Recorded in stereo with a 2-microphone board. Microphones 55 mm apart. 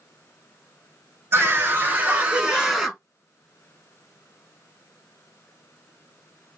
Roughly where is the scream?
Right.